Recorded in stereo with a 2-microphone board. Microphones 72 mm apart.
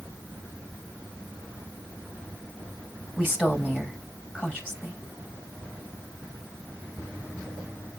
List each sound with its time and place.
3.2 s a woman speaking: 5° left (ahead or behind), 4.5 m